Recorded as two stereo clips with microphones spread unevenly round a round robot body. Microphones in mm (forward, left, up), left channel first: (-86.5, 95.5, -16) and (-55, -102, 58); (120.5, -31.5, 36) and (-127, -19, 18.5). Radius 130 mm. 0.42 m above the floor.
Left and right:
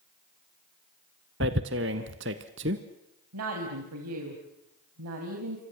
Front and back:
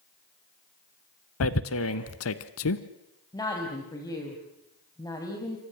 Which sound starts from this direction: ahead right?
Tearing paper, at 1.4 s.